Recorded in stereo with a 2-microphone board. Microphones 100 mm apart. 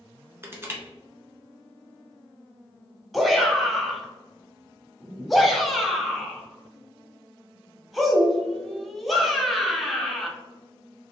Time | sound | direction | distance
0.4 | crushing | 25° right (ahead or behind) | 1.1 m
3.1 | a shout | centre (ahead or behind) | 0.9 m